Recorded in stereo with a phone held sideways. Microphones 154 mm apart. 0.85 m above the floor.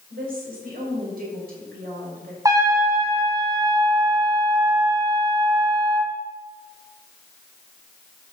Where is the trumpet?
20° right (ahead or behind), 1.7 m.